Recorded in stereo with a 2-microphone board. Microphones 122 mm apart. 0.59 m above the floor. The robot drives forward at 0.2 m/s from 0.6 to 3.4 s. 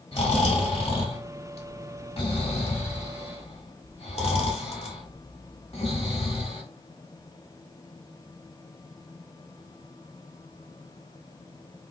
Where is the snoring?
50° left (ahead or behind), 1.8 m; by 6.6 s 55° left (ahead or behind), 1.6 m.